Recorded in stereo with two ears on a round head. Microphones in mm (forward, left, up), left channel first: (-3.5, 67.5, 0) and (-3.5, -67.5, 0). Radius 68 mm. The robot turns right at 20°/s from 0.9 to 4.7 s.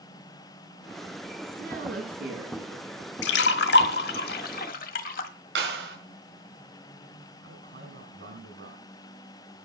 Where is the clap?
85° right, 6 m.